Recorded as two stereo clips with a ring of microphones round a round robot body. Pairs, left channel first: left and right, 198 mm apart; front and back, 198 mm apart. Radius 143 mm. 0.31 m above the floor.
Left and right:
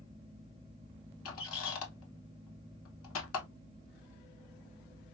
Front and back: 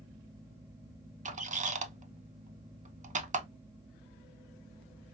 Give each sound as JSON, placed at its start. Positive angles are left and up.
{"t": 1.2, "sound": "a squeak", "azimuth_deg": 125, "distance_m": 0.6}